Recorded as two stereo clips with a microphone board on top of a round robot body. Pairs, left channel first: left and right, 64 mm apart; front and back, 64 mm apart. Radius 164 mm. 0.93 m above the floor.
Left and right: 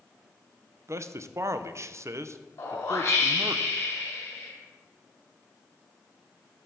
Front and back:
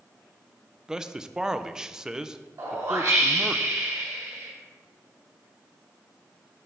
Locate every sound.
0.9 s a man speaking: 105° right, 0.6 m
2.6 s a whoosh: 140° left, 1.8 m